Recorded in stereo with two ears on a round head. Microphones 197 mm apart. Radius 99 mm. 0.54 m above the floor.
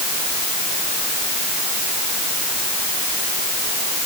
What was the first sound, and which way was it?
Only background noise.